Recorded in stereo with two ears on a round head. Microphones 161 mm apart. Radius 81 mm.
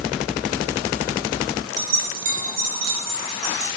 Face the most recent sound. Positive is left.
turn(degrees=-60)  # may be behind; listen again after turning